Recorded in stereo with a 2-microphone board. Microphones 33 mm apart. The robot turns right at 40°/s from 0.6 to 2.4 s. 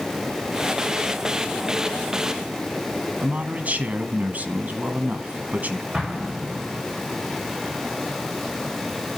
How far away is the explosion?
About 5 m.